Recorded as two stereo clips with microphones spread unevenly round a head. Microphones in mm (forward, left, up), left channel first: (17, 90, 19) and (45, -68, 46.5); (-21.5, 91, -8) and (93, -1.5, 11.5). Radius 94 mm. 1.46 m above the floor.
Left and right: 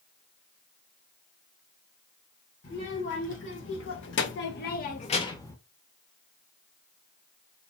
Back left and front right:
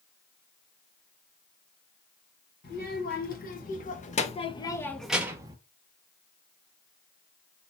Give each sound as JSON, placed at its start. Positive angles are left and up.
{"t": 2.6, "sound": "a child speaking", "azimuth_deg": 125, "distance_m": 1.3}